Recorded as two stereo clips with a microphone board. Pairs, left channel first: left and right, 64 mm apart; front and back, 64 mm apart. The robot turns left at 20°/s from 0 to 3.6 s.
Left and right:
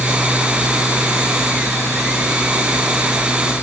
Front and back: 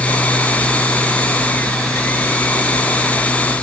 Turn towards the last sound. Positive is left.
No sound to turn to.